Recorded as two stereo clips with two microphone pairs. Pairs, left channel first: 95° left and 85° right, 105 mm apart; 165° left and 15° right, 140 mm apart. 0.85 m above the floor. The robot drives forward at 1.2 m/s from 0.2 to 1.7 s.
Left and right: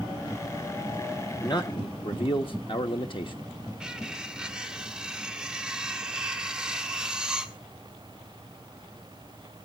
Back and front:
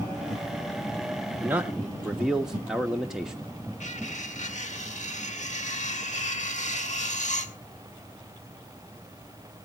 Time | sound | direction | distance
1.4 | a man speaking | 50° left | 1.2 m
3.8 | cutlery clinking | 170° right | 1.2 m